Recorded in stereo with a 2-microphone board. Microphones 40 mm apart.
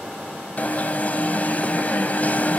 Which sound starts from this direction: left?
An alarm, at 0.6 s.